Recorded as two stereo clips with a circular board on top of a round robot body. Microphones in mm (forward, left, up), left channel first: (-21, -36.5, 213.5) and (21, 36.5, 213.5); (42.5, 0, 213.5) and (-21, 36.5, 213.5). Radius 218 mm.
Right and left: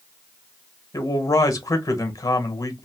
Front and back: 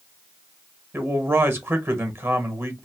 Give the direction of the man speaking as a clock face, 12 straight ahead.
5 o'clock.